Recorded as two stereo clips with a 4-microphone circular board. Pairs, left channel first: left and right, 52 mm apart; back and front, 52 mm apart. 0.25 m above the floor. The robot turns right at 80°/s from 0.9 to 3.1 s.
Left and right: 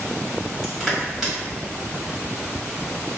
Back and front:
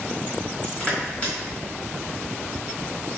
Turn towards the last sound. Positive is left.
turn(degrees=-20)